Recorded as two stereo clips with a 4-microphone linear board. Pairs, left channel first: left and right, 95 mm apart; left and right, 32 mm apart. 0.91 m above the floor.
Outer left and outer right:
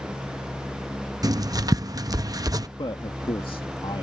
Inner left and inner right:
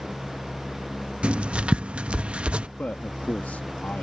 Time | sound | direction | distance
1.2 | writing | 40° right (ahead or behind) | ?
2.8 | a man speaking | 60° left (ahead or behind) | ?